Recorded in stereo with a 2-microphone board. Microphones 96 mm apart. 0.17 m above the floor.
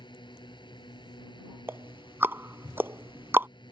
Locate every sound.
0.0 s a drone: 55° left (ahead or behind)
1.7 s ticking: 25° right (ahead or behind)